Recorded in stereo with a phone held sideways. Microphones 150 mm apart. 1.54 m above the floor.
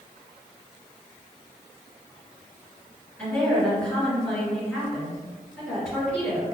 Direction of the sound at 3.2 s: 15° left (ahead or behind).